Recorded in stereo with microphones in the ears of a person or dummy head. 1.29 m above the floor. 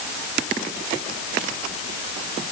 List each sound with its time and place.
Only background noise.